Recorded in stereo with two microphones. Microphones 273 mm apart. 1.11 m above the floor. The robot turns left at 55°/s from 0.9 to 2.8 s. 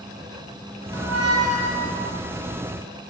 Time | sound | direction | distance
0.9 | a squeak | 80° right | 2.5 m